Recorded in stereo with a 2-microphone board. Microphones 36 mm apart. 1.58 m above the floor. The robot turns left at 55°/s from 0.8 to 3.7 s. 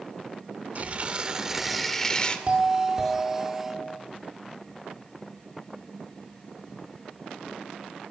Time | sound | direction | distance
0.8 | tearing paper | 125° right | 2 m
2.5 | a doorbell | 145° right | 5 m